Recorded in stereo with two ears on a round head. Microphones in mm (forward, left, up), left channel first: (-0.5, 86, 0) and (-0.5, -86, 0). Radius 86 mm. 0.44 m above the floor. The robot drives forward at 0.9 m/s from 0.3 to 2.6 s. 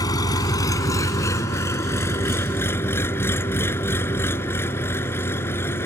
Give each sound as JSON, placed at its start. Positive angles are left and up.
{"t": 0.0, "sound": "an engine running", "side_deg": 20}